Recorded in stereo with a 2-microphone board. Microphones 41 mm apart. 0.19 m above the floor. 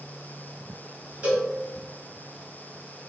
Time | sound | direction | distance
1.2 | a cowbell | 40° right (ahead or behind) | 1.5 m